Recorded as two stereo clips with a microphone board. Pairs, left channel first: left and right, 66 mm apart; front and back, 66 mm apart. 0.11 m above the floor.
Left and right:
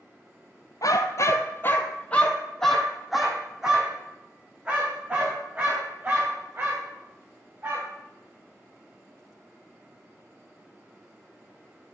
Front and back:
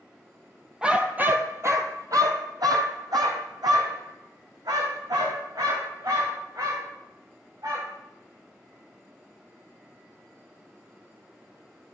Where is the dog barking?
105° left, 0.9 m; by 7.9 s 150° right, 4 m.